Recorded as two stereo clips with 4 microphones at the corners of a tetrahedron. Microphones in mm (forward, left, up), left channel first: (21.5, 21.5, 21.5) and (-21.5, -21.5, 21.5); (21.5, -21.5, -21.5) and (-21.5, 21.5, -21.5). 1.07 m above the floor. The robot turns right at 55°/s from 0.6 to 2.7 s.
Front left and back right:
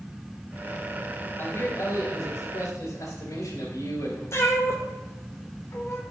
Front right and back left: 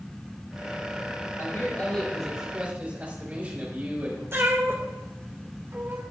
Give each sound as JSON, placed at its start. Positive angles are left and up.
{"t": 1.4, "sound": "a man speaking", "azimuth_deg": 0, "distance_m": 4.0}
{"t": 4.3, "sound": "a cat meowing", "azimuth_deg": 85, "distance_m": 1.8}